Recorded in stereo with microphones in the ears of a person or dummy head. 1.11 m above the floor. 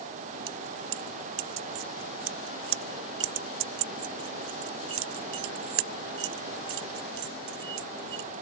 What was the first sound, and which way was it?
Keys jangling, 85° right.